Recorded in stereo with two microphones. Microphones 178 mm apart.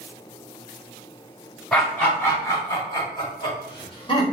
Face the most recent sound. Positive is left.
turn(degrees=30)  # may be behind; listen again after turning